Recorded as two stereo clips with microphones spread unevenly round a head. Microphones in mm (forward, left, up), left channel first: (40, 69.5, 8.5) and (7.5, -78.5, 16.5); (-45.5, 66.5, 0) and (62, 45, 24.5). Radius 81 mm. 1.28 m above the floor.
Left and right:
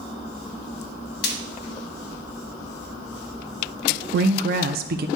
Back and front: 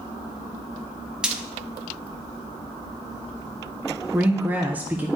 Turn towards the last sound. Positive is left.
turn(degrees=-95)